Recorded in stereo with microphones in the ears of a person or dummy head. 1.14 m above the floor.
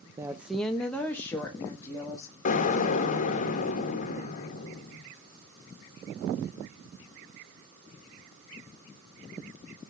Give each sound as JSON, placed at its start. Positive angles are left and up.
{"t": 0.2, "sound": "a woman speaking", "side_deg": -15, "distance_m": 0.6}
{"t": 2.5, "sound": "an explosion", "side_deg": 40, "distance_m": 1.4}